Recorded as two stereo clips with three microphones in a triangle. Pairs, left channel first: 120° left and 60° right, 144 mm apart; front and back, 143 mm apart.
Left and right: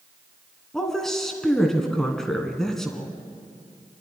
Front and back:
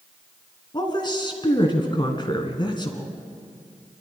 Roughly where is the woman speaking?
Ahead left.